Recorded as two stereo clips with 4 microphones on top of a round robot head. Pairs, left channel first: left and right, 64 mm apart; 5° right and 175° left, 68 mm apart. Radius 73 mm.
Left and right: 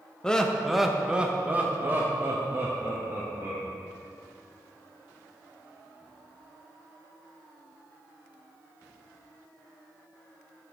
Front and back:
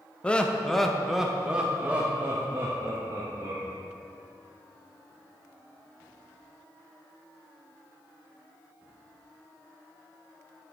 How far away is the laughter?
About 1.0 m.